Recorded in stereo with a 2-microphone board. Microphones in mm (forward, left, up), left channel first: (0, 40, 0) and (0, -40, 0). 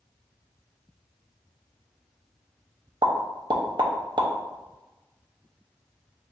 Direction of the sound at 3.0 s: 70° right (ahead or behind).